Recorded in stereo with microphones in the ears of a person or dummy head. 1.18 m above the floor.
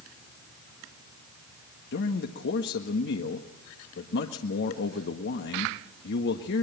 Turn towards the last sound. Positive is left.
turn(degrees=60)  # may be behind; listen again after turning